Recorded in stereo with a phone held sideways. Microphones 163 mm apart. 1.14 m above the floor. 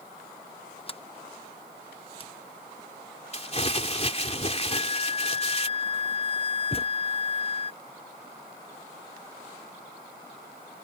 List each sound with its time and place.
0.9 s a sliding door: 35° left (ahead or behind)
3.3 s crumpling: 40° left (ahead or behind)
4.7 s a flute: 45° right (ahead or behind)
6.7 s a thud: 35° left (ahead or behind)